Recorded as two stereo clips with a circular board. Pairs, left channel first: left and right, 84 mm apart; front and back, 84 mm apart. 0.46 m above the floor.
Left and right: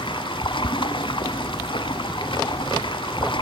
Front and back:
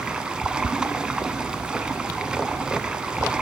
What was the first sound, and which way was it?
Running water, 100° left.